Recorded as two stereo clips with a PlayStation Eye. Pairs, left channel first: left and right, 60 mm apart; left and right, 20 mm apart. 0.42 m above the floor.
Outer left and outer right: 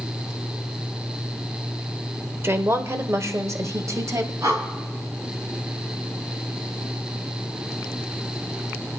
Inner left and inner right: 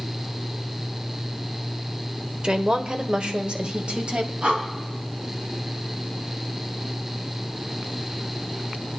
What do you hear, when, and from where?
2.4 s a woman speaking: 45° right (ahead or behind), 1.2 m; by 4.3 s 60° right (ahead or behind), 2 m
4.4 s breathing: 65° right (ahead or behind), 4.5 m